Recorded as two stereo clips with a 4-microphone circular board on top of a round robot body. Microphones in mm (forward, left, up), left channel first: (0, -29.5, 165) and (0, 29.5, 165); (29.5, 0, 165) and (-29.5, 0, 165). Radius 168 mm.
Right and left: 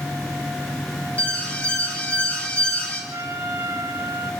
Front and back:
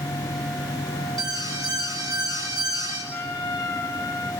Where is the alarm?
160° right, 6 m.